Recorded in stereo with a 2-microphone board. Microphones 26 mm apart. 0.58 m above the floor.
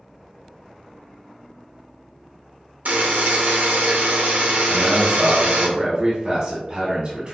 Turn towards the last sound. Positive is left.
turn(degrees=-45)  # may be behind; listen again after turning